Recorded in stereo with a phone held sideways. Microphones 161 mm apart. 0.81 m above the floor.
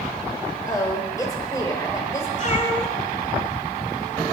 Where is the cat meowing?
50° left (ahead or behind), 2.5 m.